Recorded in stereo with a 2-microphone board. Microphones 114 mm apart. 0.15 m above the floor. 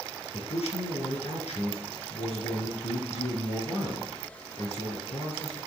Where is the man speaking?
65° left (ahead or behind), 3 m.